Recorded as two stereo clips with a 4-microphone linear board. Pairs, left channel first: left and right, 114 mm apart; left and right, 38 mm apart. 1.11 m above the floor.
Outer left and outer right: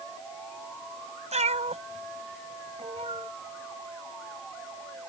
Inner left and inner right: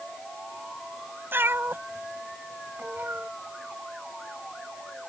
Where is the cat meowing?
80° right; by 3.3 s 65° right (ahead or behind).